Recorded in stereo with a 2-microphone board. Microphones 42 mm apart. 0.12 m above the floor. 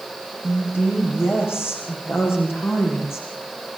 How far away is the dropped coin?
I don't hear a dropped coin.